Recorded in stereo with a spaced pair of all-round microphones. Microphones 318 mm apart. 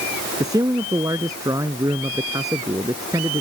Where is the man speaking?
10° right (ahead or behind).